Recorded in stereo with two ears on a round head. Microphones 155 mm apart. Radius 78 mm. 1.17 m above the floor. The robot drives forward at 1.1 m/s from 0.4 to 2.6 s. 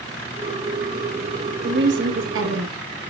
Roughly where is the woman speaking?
Right.